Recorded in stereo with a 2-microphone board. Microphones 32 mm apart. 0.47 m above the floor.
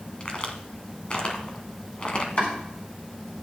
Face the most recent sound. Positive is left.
turn(degrees=55)  # may be behind; listen again after turning